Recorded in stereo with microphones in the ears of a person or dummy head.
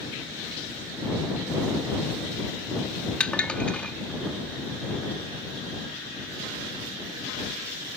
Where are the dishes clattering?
5° left (ahead or behind).